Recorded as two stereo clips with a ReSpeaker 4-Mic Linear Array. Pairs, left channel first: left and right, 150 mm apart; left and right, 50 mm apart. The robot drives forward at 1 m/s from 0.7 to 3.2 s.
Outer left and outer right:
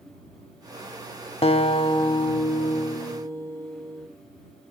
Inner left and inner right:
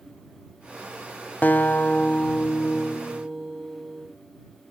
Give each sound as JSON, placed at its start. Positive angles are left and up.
{"t": 1.4, "sound": "a guitar", "side_deg": 40, "distance_m": 0.8}